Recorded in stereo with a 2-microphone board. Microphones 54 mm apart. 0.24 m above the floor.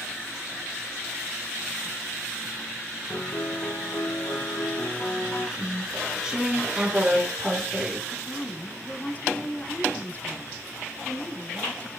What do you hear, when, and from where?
3.1 s a piano: 75° left (ahead or behind), 7 m
5.6 s chewing: 10° right (ahead or behind), 2.5 m
8.1 s a woman speaking: 30° left (ahead or behind), 2.0 m